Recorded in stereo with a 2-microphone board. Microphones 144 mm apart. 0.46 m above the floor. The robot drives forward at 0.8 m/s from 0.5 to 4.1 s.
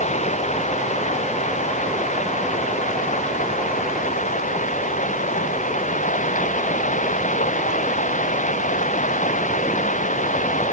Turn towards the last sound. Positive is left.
turn(degrees=60)  # may be behind; listen again after turning